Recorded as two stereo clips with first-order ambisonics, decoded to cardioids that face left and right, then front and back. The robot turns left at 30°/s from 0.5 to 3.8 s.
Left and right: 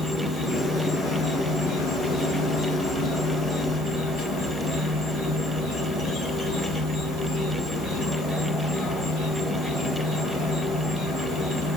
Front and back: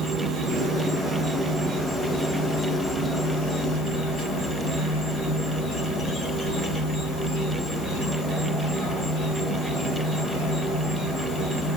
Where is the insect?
145° left, 2.5 m; by 11.8 s 45° left, 2.5 m.